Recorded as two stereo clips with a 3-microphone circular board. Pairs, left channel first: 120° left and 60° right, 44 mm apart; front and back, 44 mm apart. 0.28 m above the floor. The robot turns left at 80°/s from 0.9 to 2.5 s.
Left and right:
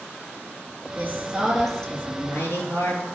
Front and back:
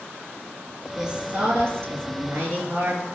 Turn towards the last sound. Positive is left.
turn(degrees=135)